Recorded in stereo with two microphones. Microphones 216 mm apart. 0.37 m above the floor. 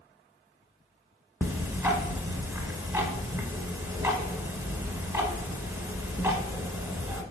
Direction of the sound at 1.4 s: 15° right (ahead or behind).